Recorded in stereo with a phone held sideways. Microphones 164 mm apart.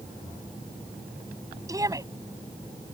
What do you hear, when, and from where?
1.7 s a shout: 20° right (ahead or behind)